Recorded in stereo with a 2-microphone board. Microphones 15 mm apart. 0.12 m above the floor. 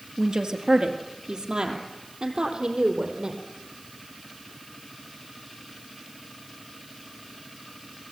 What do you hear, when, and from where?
0.2 s a woman speaking: 60° right (ahead or behind), 2 m; by 3.4 s 70° right (ahead or behind), 4 m